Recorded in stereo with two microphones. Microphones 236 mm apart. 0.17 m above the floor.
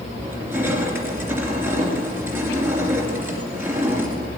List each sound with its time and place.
0.2 s crushing: 10° right (ahead or behind), 2.5 m